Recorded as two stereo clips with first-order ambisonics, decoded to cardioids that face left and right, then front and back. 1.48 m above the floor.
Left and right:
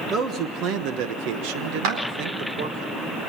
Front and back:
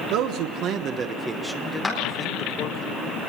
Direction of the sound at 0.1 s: 150° right.